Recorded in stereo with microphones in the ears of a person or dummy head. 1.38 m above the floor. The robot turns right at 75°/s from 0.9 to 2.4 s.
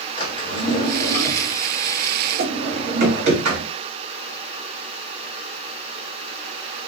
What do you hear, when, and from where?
0.2 s a drawer: 35° left (ahead or behind), 1.2 m; by 3.7 s 55° right (ahead or behind), 1.2 m